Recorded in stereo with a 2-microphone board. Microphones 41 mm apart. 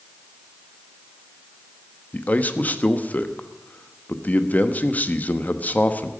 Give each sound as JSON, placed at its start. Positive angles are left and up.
{"t": 2.1, "sound": "a man speaking", "side_deg": 40, "distance_m": 1.1}